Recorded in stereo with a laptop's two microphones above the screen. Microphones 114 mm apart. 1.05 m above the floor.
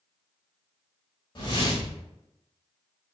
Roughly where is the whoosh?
Left.